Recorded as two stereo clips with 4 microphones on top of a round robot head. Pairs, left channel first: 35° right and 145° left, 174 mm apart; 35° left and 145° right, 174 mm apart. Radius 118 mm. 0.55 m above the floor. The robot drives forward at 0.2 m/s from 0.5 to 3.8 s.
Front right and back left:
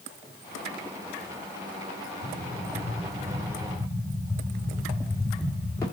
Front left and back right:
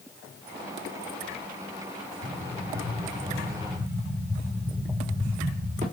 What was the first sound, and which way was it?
An explosion, 95° right.